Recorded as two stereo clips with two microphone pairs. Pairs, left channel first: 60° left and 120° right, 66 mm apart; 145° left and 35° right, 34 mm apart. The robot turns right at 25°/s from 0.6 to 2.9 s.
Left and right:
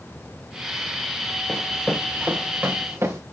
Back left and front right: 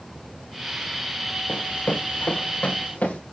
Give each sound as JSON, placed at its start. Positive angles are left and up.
{"t": 1.5, "sound": "running footsteps", "azimuth_deg": 135, "distance_m": 2.5}